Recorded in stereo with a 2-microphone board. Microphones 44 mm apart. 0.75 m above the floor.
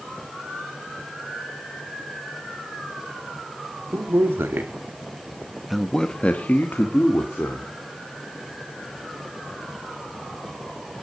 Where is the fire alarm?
I don't hear a fire alarm.